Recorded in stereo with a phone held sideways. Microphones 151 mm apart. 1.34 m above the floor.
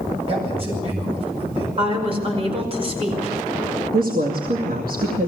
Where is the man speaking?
40° right (ahead or behind), 8.5 m.